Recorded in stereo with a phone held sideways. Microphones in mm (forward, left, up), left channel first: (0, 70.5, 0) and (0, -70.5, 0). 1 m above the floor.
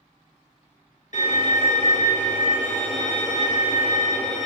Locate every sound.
1.1 s a violin: 60° left (ahead or behind), 0.9 m